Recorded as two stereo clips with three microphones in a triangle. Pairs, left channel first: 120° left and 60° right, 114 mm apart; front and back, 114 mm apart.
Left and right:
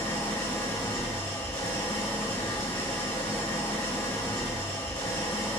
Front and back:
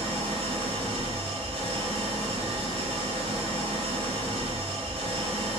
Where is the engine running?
170° right, 1.2 m.